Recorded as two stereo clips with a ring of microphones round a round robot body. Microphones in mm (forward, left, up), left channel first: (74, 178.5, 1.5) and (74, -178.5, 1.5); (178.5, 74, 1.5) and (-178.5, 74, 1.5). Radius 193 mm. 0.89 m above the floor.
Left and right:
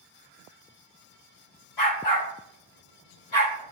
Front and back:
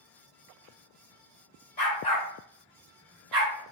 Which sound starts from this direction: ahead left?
A dog barking, at 1.8 s.